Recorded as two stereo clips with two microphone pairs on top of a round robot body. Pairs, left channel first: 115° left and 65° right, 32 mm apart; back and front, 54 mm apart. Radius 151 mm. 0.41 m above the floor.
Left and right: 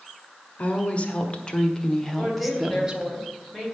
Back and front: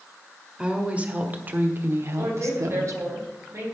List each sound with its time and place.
0.6 s a woman speaking: 75° left, 1.7 m; by 3.2 s 15° right, 1.1 m
2.2 s a woman speaking: 35° left, 4 m